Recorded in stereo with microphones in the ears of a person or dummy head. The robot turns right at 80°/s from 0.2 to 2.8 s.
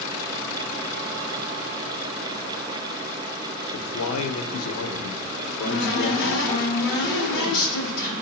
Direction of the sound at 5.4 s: 65° left (ahead or behind).